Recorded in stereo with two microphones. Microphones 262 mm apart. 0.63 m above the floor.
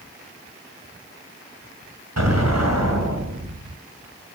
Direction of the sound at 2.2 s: 80° right.